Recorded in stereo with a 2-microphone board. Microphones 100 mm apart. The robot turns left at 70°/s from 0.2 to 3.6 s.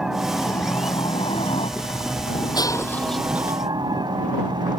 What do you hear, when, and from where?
0.0 s a helicopter: 175° right; by 4.8 s 50° right
2.5 s breaking glass: 45° left; by 3.6 s 30° right